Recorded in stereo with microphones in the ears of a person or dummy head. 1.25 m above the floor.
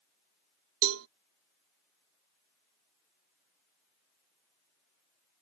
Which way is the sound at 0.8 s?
75° right (ahead or behind).